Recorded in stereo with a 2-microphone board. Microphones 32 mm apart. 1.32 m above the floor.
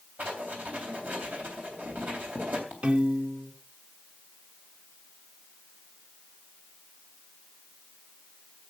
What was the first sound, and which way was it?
Writing, 65° right (ahead or behind).